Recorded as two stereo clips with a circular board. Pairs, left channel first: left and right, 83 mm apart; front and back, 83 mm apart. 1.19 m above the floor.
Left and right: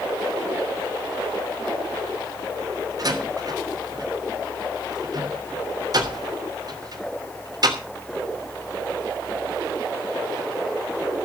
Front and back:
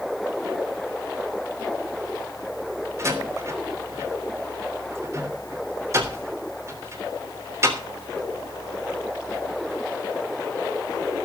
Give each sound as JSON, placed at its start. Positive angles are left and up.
{"t": 3.0, "sound": "a door slam", "azimuth_deg": -130, "distance_m": 3.0}